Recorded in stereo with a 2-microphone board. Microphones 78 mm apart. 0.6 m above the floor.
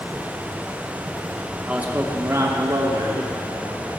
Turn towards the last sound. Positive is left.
turn(degrees=-60)  # may be behind; listen again after turning